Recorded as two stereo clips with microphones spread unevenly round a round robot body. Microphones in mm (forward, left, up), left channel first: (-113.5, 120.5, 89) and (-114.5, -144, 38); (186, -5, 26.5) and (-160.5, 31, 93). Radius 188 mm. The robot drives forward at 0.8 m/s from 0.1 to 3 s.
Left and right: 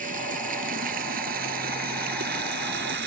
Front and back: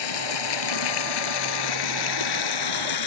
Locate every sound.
0.0 s running water: 20° right; by 3.1 s 30° right